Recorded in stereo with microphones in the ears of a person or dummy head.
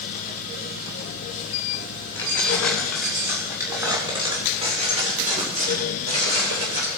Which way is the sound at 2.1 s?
10° left (ahead or behind).